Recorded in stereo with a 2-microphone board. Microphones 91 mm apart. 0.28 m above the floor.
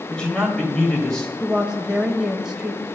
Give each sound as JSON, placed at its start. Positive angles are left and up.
{"t": 0.1, "sound": "a man speaking", "side_deg": 10, "distance_m": 1.6}
{"t": 1.4, "sound": "a woman speaking", "side_deg": -5, "distance_m": 1.0}